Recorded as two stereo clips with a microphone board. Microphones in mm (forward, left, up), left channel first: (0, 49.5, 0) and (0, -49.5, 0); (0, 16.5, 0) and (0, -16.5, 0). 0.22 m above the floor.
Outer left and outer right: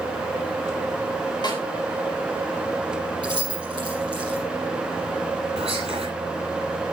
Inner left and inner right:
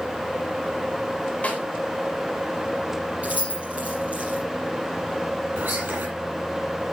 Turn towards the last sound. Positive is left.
turn(degrees=-75)  # may be behind; listen again after turning